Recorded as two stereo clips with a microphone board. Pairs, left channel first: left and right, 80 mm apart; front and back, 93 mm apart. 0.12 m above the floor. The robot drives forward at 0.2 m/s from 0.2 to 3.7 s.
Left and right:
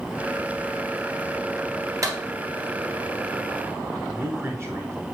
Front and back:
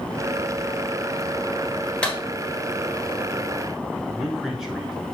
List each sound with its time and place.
2.0 s a clap: 75° right, 2.0 m
4.1 s a man speaking: 100° right, 1.6 m